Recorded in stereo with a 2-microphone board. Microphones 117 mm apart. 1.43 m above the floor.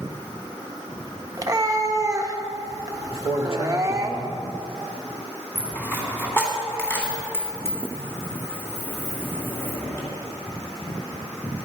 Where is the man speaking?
55° left (ahead or behind), 2.5 m.